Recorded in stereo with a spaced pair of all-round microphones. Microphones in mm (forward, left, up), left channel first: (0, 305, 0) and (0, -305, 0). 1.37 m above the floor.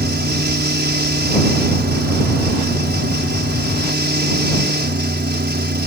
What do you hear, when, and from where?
0.0 s a fan: 15° right (ahead or behind)